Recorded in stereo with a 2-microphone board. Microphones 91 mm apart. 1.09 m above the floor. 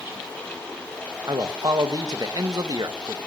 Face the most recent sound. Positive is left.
turn(degrees=-45)  # may be behind; listen again after turning